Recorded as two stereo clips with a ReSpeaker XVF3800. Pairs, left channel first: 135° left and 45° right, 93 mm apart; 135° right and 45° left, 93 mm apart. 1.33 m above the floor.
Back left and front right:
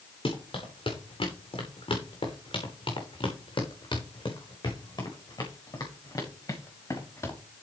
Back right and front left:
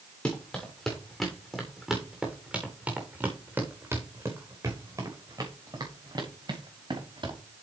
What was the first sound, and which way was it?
Running footsteps, 150° left.